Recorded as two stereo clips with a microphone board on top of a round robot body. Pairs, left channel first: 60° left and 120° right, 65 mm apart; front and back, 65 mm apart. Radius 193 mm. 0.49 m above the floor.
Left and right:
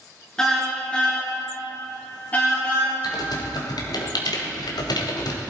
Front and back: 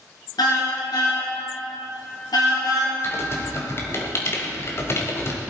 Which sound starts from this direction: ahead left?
Typing on a keyboard, at 3.0 s.